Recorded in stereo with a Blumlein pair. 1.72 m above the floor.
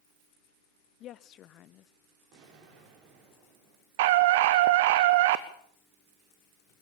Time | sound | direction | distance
1.0 | a woman speaking | 30° left | 0.7 m
2.3 | an explosion | 40° right | 5 m
4.0 | a scream | 50° right | 0.9 m